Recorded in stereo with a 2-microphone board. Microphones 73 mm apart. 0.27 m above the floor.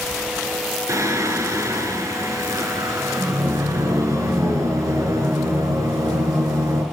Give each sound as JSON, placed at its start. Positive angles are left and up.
{"t": 0.9, "sound": "singing", "side_deg": -45, "distance_m": 1.4}